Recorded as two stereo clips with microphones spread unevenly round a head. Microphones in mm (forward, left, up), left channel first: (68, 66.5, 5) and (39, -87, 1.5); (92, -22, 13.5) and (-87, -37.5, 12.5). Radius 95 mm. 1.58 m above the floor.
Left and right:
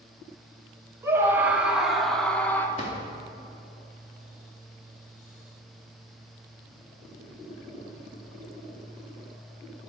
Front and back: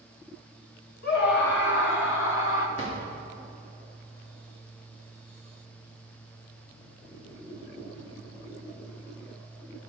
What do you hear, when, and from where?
1.0 s a scream: 25° right, 2 m; by 2.7 s straight ahead, 1.9 m
2.8 s a drawer: 35° left, 2.5 m